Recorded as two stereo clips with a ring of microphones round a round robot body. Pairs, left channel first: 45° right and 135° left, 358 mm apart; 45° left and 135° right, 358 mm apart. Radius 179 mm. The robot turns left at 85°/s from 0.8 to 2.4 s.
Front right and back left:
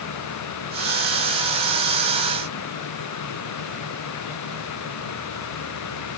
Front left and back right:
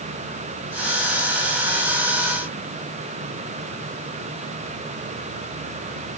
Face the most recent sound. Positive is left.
No sound to turn to.